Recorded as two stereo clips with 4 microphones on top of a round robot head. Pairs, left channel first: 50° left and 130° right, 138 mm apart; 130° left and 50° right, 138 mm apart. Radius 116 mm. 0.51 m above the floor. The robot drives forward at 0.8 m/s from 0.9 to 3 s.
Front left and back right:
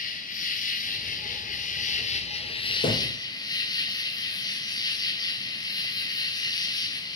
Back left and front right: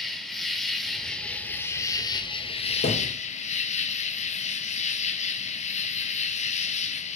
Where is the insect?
40° left, 1.9 m; by 7.2 s 110° left, 1.4 m.